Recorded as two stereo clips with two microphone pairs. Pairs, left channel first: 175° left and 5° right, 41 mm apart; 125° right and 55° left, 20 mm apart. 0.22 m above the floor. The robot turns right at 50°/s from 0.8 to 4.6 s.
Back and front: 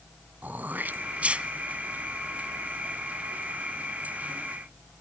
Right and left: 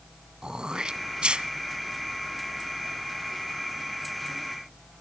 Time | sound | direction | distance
0.4 | throat clearing | 20° left | 1.0 m